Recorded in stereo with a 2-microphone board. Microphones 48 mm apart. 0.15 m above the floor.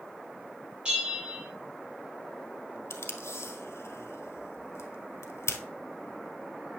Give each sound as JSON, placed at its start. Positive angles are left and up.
{"t": 0.8, "sound": "a bell", "side_deg": -20, "distance_m": 4.0}
{"t": 2.9, "sound": "tape being pulled", "side_deg": 70, "distance_m": 1.4}